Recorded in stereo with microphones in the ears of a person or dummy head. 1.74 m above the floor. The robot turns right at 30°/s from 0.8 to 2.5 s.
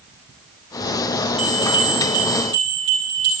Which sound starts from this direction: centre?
A bell, at 1.4 s.